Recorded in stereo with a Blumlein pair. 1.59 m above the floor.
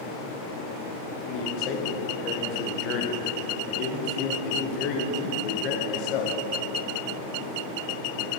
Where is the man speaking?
40° left, 1.3 m.